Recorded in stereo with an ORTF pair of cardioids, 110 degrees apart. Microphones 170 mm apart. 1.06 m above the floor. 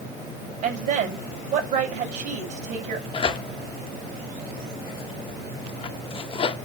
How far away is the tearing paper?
About 1.0 m.